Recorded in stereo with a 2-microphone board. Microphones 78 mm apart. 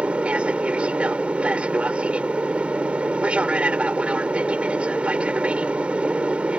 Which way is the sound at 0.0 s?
15° right (ahead or behind).